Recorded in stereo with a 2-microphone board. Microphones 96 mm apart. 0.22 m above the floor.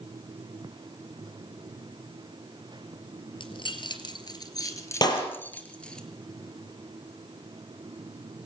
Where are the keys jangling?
65° left (ahead or behind), 3 m; by 6.0 s 10° left (ahead or behind), 3 m.